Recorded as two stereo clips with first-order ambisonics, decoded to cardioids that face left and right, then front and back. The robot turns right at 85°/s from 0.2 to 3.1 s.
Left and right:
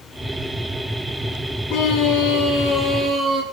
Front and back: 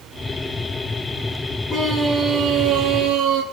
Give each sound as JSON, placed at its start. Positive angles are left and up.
{"t": 1.7, "sound": "a scream", "azimuth_deg": 65, "distance_m": 9.5}